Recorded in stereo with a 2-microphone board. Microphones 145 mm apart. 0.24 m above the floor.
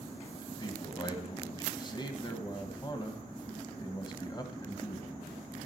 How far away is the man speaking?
About 1.4 m.